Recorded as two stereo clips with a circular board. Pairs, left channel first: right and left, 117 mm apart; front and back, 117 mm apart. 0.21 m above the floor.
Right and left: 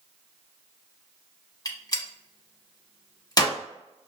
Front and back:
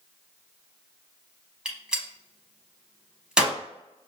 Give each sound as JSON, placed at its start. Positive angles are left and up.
{"t": 1.6, "sound": "a gunshot", "azimuth_deg": -100, "distance_m": 0.9}